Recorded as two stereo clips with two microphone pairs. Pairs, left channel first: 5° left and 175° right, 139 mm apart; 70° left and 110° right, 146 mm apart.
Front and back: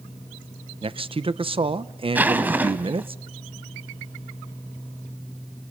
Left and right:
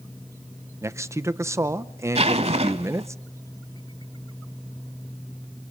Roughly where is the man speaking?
Behind.